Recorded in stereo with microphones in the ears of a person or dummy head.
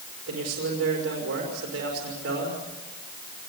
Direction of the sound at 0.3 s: 85° right.